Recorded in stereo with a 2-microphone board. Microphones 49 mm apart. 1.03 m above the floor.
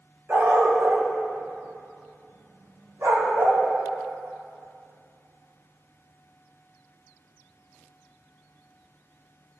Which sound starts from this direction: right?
A dog barking, at 0.3 s.